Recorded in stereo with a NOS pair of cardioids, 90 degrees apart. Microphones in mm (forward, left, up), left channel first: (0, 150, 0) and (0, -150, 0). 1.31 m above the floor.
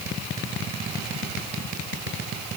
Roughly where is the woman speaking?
I don't hear a woman speaking.